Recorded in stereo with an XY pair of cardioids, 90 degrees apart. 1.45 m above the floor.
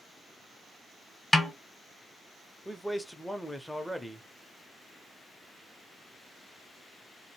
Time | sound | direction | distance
1.3 | a snare drum | 15° left | 1.1 m
2.6 | a man speaking | 5° left | 0.7 m